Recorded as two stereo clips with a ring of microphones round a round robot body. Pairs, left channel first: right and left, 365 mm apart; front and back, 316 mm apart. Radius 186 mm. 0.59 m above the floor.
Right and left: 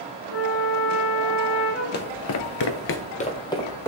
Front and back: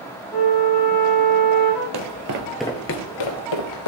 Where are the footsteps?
150° right, 1.2 m; by 3.9 s 5° right, 2.0 m.